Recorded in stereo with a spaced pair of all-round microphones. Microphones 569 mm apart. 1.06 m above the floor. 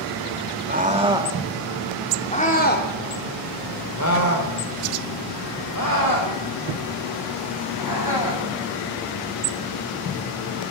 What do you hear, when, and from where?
0.7 s a scream: 15° right (ahead or behind), 2.5 m; by 8.4 s 40° left (ahead or behind), 8.5 m